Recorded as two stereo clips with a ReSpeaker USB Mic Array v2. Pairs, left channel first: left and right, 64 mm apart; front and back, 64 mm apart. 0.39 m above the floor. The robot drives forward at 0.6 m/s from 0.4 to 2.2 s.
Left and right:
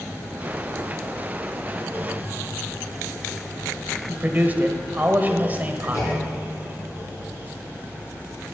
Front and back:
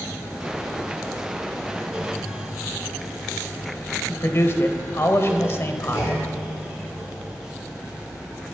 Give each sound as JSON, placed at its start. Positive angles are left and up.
{"t": 4.1, "sound": "a man speaking", "azimuth_deg": -35, "distance_m": 1.3}
{"t": 5.9, "sound": "a clunk", "azimuth_deg": 50, "distance_m": 5.5}